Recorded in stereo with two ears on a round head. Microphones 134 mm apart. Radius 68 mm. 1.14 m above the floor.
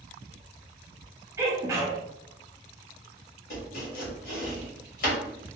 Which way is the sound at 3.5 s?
60° left (ahead or behind).